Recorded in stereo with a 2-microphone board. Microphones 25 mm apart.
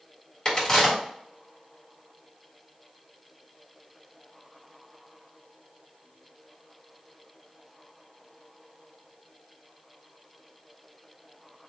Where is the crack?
30° left (ahead or behind), 1.8 m.